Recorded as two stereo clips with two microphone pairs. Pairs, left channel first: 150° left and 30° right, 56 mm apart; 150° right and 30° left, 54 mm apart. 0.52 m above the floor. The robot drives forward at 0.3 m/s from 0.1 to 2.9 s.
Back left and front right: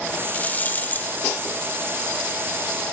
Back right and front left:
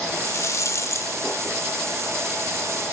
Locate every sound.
0.1 s a rattle: 150° right, 0.7 m; by 1.1 s 160° right, 0.9 m